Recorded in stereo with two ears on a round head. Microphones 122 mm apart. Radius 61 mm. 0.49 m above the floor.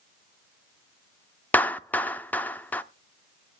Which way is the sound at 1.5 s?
10° left (ahead or behind).